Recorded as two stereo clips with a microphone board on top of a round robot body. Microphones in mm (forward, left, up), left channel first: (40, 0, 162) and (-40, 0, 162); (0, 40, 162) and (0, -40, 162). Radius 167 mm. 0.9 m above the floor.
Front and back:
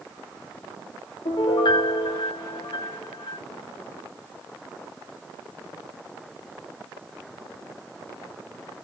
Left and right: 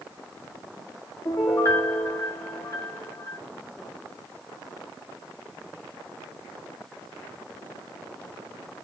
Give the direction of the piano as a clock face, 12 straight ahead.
11 o'clock.